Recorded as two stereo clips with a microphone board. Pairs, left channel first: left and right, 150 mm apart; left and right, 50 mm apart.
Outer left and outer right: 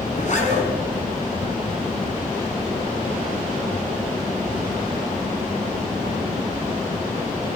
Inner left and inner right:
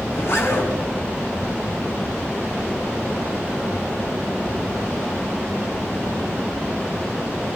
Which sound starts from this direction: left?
A zipper, at 0.1 s.